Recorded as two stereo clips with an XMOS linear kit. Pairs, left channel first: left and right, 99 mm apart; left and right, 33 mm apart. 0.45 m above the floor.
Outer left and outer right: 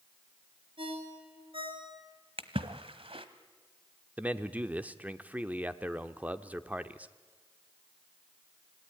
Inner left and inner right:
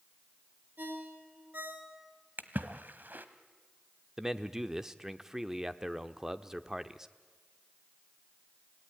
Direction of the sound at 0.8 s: 65° right (ahead or behind).